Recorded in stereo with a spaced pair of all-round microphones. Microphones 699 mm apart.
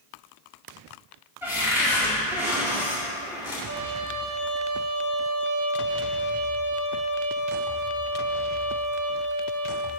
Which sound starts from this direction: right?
A trumpet, at 3.7 s.